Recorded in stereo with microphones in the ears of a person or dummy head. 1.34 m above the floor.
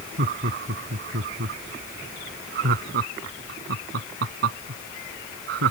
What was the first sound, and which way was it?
Laughter, 50° right (ahead or behind).